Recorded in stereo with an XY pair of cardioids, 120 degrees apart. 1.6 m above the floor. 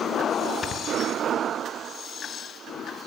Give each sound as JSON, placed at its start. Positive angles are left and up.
{"t": 0.6, "sound": "snoring", "azimuth_deg": 45, "distance_m": 4.0}